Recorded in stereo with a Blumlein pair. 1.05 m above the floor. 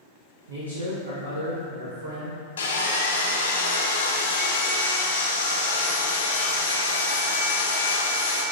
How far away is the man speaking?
About 1.0 m.